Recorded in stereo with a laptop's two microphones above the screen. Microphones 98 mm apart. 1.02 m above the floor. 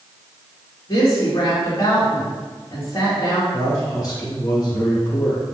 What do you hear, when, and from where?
0.9 s a woman speaking: 40° left (ahead or behind), 1.7 m
3.5 s a man speaking: 40° left (ahead or behind), 1.5 m